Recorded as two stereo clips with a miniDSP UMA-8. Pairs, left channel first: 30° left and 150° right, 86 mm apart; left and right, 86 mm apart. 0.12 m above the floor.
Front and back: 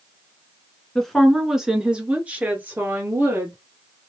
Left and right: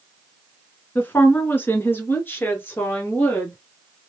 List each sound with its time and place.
0.9 s a woman speaking: 105° left, 1.3 m; by 3.5 s 150° left, 2 m